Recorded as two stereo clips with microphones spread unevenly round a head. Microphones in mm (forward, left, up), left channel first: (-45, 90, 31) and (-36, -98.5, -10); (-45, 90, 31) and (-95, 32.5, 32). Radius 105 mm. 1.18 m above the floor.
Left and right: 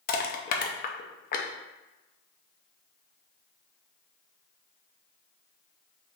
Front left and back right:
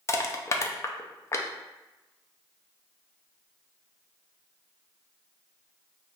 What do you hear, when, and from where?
0.1 s crushing: 65° left, 0.5 m